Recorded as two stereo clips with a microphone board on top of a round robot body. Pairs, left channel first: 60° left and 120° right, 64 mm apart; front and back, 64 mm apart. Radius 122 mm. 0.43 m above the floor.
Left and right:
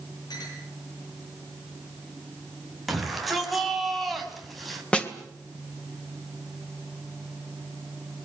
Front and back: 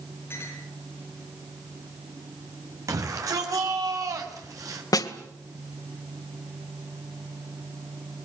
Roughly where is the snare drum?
Ahead.